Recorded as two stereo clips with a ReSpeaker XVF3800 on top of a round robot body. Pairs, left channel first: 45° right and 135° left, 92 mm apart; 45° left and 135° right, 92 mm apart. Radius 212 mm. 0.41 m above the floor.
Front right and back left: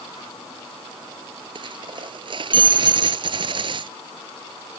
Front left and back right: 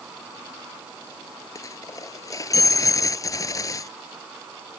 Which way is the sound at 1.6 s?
100° left.